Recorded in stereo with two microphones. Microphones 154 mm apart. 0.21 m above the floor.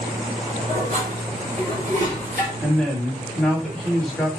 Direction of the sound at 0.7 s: 60° right (ahead or behind).